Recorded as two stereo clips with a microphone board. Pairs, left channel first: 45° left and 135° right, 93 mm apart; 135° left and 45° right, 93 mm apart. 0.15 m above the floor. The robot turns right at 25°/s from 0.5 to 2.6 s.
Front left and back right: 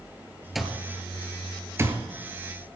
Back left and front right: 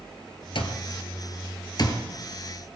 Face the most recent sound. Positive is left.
turn(degrees=-170)